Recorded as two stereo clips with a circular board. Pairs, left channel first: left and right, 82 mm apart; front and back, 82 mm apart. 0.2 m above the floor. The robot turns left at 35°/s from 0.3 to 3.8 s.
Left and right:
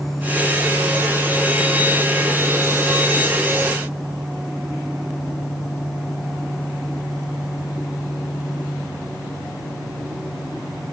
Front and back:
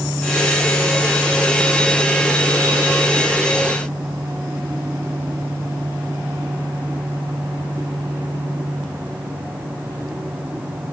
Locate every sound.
Only background noise.